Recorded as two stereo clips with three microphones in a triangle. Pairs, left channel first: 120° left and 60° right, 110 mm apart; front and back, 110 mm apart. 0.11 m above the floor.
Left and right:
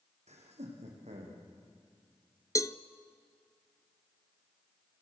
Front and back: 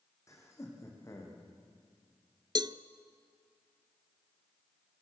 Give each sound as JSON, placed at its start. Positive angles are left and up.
{"t": 0.3, "sound": "laughter", "azimuth_deg": -60, "distance_m": 6.0}
{"t": 2.5, "sound": "a cowbell", "azimuth_deg": 165, "distance_m": 0.7}